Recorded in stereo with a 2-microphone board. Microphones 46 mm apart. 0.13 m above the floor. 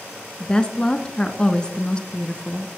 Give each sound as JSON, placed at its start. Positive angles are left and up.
{"t": 0.4, "sound": "a woman speaking", "side_deg": 20, "distance_m": 1.1}